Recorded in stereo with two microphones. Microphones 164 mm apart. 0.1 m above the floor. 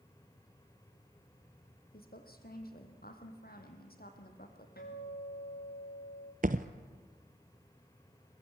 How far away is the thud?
About 1.0 m.